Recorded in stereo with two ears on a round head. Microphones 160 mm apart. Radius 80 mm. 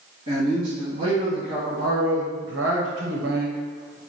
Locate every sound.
0.3 s a man speaking: 40° right (ahead or behind), 2.0 m